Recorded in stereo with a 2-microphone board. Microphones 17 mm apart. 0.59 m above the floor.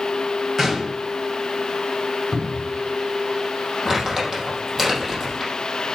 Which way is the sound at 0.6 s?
10° right (ahead or behind).